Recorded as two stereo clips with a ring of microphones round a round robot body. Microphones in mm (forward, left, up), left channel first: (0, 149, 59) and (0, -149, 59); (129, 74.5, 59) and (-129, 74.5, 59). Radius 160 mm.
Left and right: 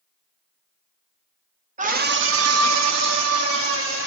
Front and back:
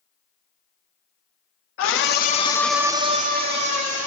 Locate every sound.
1.8 s a scream: 25° right, 1.4 m; by 4.1 s 140° right, 2 m